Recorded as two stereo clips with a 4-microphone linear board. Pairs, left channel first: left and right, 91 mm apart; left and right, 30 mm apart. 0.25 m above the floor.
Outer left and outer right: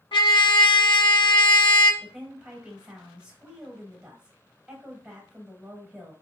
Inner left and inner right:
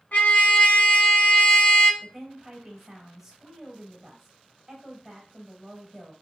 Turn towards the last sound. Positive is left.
turn(degrees=-10)  # may be behind; listen again after turning